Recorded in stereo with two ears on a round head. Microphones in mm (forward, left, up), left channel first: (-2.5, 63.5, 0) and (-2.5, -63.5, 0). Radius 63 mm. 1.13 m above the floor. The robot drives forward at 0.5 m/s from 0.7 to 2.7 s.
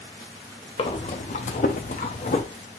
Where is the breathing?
40° left (ahead or behind), 0.8 m; by 2.4 s 45° left (ahead or behind), 0.7 m.